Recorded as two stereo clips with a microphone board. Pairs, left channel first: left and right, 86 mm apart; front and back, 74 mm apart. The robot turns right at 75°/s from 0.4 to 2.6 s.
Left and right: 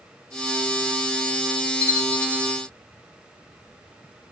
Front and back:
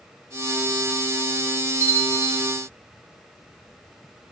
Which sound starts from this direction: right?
A bell, at 1.8 s.